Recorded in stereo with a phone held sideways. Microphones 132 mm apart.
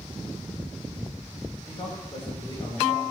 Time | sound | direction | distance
1.7 | a man speaking | 35° left (ahead or behind) | 5 m